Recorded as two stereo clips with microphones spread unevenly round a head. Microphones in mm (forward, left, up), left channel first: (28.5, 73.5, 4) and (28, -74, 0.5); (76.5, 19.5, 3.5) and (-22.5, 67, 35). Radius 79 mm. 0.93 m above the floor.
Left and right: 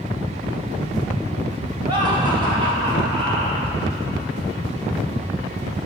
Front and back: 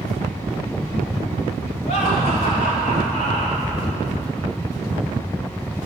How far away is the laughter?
About 5 m.